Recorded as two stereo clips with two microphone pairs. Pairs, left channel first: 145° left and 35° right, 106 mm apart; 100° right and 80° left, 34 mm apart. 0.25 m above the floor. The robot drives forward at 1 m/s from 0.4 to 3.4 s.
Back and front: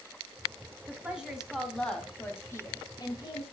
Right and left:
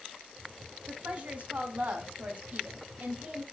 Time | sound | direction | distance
0.9 | a woman speaking | 40° left | 2.5 m